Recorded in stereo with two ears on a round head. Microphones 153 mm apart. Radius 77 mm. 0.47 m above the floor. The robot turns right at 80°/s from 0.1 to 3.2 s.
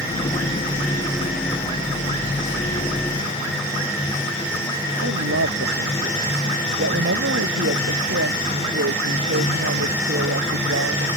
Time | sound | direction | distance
5.0 | a woman speaking | 75° right (ahead or behind) | ?